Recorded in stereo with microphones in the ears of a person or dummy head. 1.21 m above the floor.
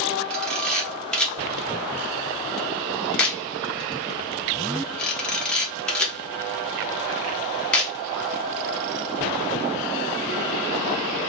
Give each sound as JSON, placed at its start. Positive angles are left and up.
{"t": 0.3, "sound": "a camera shutter", "side_deg": 0, "distance_m": 0.6}